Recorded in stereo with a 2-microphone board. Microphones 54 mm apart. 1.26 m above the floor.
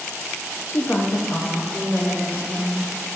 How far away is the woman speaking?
About 0.7 m.